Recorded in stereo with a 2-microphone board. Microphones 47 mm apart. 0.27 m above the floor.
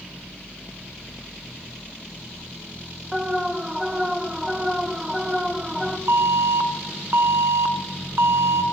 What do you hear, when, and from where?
3.1 s an alarm: 10° right (ahead or behind), 1.2 m
6.1 s an alarm: 65° right (ahead or behind), 1.5 m